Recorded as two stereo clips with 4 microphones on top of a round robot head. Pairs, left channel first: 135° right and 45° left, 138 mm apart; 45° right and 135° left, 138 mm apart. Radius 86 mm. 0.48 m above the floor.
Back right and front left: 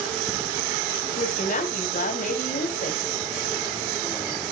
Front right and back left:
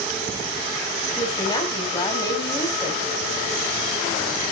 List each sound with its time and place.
1.2 s a woman speaking: 105° right, 4 m